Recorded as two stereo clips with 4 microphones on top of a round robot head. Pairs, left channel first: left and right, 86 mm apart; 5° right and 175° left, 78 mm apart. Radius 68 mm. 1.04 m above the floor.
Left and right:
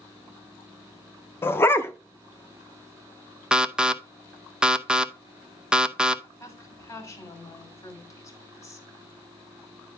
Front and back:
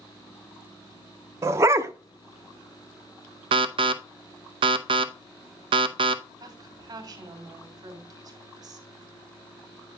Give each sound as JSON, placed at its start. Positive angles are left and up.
{"t": 1.4, "sound": "a dog barking", "azimuth_deg": 140, "distance_m": 0.6}
{"t": 3.5, "sound": "an alarm", "azimuth_deg": -170, "distance_m": 0.7}
{"t": 6.4, "sound": "a woman speaking", "azimuth_deg": 140, "distance_m": 3.5}